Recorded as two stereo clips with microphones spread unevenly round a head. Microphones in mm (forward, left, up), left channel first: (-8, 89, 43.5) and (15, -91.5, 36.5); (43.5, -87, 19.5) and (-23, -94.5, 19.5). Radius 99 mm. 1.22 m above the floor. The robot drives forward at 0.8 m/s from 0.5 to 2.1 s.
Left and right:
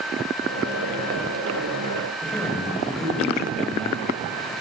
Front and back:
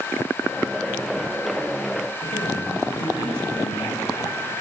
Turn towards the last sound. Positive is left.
turn(degrees=10)